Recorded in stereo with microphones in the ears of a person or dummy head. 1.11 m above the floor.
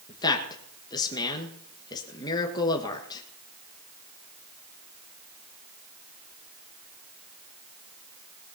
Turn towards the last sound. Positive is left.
turn(degrees=20)  # may be behind; listen again after turning